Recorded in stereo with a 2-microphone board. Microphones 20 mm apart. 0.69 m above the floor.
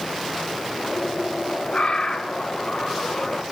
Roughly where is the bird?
Left.